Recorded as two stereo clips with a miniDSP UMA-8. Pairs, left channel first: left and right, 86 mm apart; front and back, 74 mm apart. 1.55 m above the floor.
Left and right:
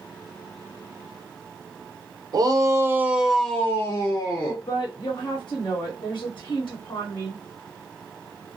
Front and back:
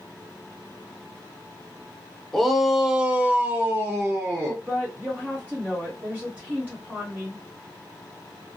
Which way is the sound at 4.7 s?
105° left.